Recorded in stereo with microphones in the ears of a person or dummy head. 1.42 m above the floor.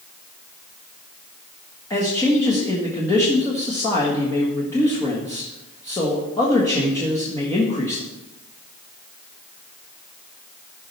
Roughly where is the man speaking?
Centre.